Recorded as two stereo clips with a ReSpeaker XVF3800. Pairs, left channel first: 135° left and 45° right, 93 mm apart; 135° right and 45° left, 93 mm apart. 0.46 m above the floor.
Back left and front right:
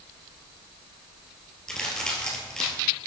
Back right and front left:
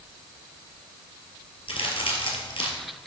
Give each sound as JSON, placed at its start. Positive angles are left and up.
{"t": 1.7, "sound": "a crack", "azimuth_deg": -145, "distance_m": 2.0}